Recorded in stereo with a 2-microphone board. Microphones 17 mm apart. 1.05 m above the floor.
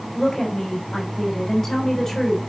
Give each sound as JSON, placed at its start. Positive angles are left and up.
{"t": 0.1, "sound": "a woman speaking", "side_deg": 20, "distance_m": 3.5}